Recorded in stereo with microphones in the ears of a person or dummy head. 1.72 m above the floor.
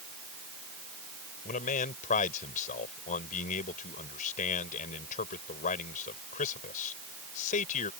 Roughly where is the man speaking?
Left.